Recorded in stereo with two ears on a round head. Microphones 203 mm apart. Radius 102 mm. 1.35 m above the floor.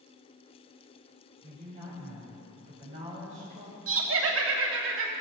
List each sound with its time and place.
1.4 s a woman speaking: 30° right (ahead or behind), 6 m
3.9 s laughter: 65° right (ahead or behind), 2.5 m